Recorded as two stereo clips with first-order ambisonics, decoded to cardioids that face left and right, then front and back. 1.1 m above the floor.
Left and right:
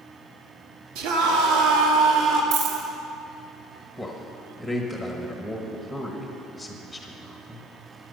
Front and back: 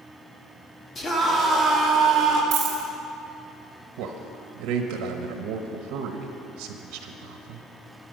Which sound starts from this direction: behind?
A man speaking, at 4.0 s.